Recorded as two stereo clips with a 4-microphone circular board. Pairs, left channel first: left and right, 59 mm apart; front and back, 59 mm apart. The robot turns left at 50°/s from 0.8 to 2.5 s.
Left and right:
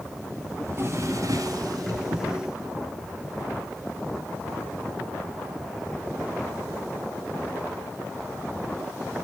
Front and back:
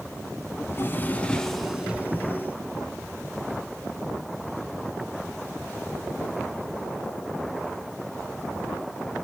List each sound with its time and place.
0.6 s a drawer: 50° right, 1.9 m; by 2.3 s 120° right, 1.9 m